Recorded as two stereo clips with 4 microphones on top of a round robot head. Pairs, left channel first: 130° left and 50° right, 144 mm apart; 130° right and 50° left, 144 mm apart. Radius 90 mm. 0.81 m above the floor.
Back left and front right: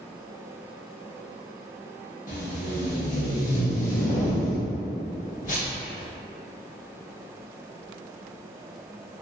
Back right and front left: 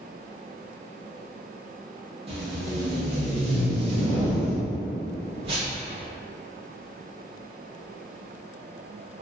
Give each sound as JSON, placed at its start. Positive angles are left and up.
{"t": 2.3, "sound": "tape being pulled", "azimuth_deg": 100, "distance_m": 1.1}